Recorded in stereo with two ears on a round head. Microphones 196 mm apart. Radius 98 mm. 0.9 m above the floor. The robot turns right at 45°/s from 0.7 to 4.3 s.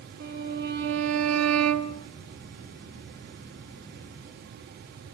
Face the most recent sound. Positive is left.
turn(degrees=30)